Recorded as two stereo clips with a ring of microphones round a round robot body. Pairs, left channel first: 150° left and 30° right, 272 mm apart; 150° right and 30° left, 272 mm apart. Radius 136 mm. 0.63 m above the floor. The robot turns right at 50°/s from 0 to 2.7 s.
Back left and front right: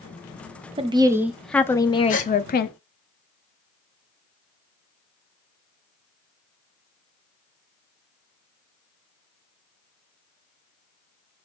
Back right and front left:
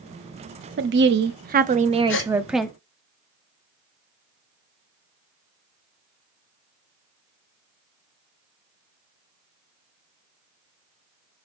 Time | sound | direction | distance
0.8 | a woman speaking | 30° left | 0.7 m
2.1 | a gasp | 165° right | 1.4 m